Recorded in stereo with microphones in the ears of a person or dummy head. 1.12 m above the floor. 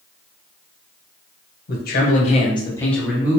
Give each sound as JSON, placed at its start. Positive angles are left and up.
{"t": 1.7, "sound": "a man speaking", "side_deg": 55, "distance_m": 1.1}